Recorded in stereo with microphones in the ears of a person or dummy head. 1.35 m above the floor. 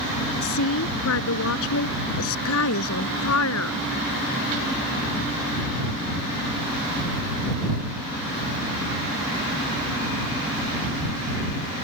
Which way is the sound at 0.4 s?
70° left (ahead or behind).